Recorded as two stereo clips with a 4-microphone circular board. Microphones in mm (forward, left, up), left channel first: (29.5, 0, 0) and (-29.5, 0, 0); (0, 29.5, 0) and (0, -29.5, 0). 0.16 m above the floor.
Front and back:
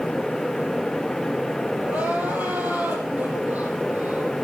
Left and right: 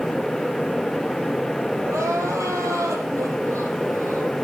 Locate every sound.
1.8 s crying: 120° right, 4.5 m